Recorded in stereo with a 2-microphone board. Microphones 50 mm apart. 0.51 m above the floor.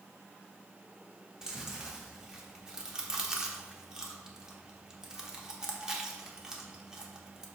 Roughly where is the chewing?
Centre.